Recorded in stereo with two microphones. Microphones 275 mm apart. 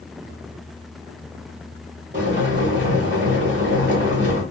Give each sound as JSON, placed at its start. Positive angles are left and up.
{"t": 2.1, "sound": "boiling", "side_deg": -35, "distance_m": 1.7}